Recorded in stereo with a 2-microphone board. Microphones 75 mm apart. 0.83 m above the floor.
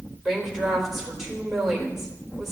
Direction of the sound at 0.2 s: 5° right (ahead or behind).